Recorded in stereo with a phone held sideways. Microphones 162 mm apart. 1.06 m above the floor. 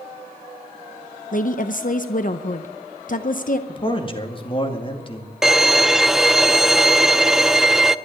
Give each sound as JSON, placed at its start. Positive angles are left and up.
{"t": 1.3, "sound": "a woman speaking", "side_deg": 55, "distance_m": 0.7}
{"t": 3.7, "sound": "a man speaking", "side_deg": 35, "distance_m": 2.0}
{"t": 5.4, "sound": "a violin", "side_deg": 0, "distance_m": 0.5}